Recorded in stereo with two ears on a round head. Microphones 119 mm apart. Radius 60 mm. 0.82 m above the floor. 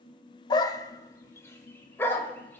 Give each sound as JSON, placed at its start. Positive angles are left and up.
{"t": 0.5, "sound": "a dog barking", "side_deg": 30, "distance_m": 0.6}